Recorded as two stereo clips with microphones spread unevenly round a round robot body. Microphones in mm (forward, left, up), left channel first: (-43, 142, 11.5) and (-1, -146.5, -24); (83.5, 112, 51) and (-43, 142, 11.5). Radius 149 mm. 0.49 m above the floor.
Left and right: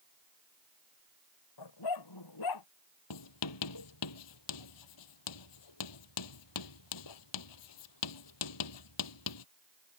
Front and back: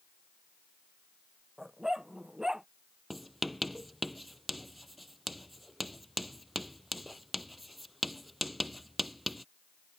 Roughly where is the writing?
Left.